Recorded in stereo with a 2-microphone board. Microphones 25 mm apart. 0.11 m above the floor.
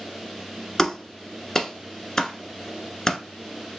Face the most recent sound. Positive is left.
turn(degrees=20)  # may be behind; listen again after turning